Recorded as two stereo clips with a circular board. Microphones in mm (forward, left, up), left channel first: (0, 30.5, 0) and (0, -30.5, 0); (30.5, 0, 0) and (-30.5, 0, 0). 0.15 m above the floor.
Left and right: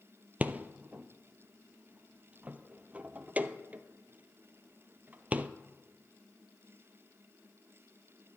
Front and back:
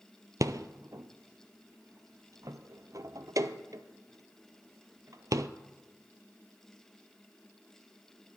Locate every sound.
0.4 s a rattle: 155° right, 0.5 m